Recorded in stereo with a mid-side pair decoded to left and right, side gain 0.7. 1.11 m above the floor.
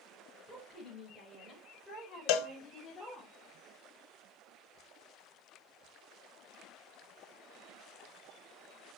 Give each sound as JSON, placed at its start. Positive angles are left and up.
{"t": 0.5, "sound": "a woman speaking", "azimuth_deg": 0, "distance_m": 5.0}
{"t": 2.3, "sound": "a cowbell", "azimuth_deg": 65, "distance_m": 1.0}